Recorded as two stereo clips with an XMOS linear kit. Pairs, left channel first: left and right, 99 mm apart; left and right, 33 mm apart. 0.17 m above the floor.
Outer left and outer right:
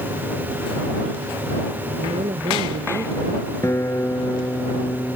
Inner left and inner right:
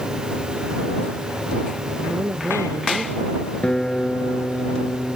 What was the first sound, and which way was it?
A woman speaking, 80° right.